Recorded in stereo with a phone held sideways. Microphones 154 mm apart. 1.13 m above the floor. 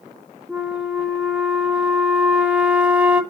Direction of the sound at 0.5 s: 10° right (ahead or behind).